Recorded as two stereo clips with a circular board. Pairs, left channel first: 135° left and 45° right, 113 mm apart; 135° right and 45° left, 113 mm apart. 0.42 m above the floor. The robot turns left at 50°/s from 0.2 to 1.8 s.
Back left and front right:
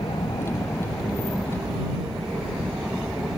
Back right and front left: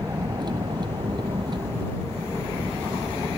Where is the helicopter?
95° left; by 3.4 s 15° left.